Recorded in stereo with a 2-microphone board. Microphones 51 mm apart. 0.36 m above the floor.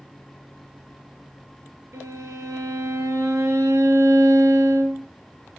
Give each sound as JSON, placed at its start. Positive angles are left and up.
{"t": 1.9, "sound": "a violin", "side_deg": -75, "distance_m": 4.0}